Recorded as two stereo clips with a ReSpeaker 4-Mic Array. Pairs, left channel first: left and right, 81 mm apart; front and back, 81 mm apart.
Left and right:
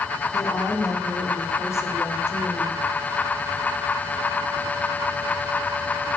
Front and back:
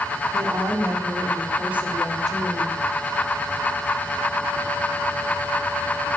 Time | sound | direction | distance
0.3 | a woman speaking | 130° left | 2.5 m